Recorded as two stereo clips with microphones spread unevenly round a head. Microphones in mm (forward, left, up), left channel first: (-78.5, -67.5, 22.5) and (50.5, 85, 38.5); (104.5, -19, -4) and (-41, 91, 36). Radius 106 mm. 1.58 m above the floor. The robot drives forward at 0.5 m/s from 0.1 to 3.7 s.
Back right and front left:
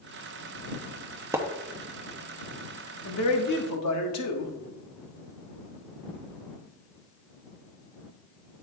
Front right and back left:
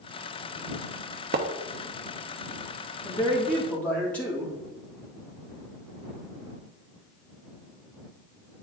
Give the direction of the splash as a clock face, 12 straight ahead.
8 o'clock.